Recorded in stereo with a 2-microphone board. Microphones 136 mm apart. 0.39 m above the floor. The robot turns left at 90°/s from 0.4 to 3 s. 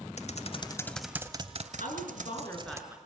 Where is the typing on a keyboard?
55° left (ahead or behind), 1.0 m; by 2.8 s 20° right (ahead or behind), 1.0 m.